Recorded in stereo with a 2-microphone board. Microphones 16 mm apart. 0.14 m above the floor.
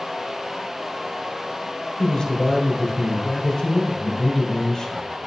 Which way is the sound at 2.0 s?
30° left (ahead or behind).